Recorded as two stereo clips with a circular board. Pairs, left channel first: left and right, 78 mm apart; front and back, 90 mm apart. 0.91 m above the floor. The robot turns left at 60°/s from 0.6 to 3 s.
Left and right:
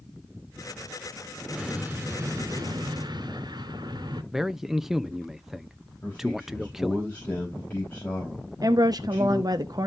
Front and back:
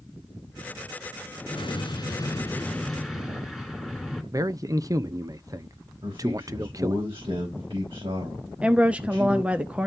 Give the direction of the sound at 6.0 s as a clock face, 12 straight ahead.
7 o'clock.